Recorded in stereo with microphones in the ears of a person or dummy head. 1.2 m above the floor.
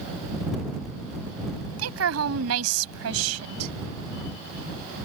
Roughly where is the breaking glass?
No breaking glass in this recording.